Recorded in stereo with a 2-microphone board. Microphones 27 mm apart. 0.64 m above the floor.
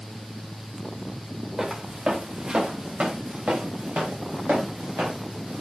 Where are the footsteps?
25° right (ahead or behind), 3.5 m; by 5.6 s 80° right, 4.5 m.